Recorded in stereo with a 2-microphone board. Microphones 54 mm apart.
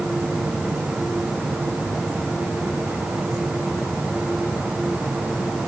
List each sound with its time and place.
Only background noise.